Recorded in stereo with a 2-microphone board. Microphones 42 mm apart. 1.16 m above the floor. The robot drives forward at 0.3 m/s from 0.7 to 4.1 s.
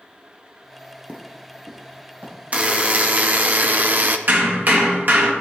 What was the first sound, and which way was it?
Footsteps, 30° right (ahead or behind).